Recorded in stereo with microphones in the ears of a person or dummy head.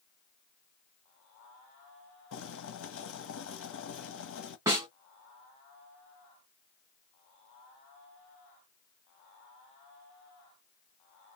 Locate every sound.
2.3 s boiling: 65° left (ahead or behind), 1.0 m
4.7 s a snare drum: 20° right (ahead or behind), 1.8 m